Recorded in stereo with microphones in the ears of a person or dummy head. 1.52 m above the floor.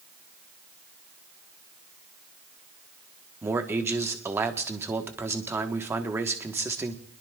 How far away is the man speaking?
About 1.3 m.